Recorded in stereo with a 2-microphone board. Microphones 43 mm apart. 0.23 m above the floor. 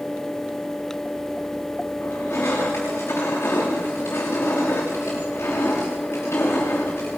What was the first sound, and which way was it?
Crushing, 90° left.